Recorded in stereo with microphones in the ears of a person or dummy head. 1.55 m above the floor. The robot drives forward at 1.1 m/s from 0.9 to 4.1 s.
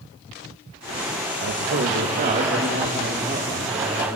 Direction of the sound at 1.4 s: 60° right (ahead or behind).